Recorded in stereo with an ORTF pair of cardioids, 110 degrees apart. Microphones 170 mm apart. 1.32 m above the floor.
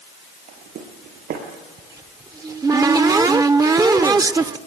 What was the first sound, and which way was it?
Footsteps, 65° right.